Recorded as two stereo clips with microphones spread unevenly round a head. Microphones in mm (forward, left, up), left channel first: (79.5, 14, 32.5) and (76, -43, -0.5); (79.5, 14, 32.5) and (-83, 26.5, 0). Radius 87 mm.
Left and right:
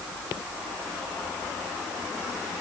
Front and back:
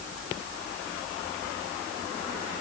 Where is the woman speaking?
I don't hear a woman speaking.